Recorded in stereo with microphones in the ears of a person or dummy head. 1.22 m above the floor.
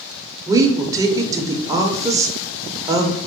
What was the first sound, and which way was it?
A woman speaking, 20° right (ahead or behind).